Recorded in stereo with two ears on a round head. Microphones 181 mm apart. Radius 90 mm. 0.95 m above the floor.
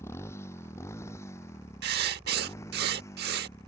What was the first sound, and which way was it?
A motorcycle, 15° left (ahead or behind).